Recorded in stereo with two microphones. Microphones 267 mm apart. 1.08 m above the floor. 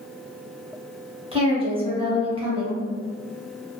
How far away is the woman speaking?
About 0.9 m.